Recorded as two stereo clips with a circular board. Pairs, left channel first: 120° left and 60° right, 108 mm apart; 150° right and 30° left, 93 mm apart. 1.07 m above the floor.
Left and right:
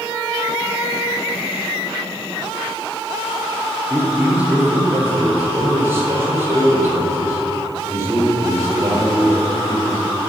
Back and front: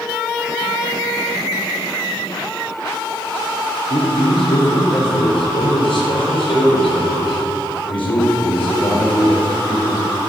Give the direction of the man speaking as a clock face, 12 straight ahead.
5 o'clock.